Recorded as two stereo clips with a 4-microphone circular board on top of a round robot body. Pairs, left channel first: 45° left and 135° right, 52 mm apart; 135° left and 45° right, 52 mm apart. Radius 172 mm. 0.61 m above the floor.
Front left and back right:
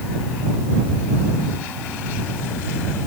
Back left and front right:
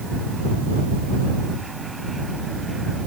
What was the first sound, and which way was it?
Only background noise.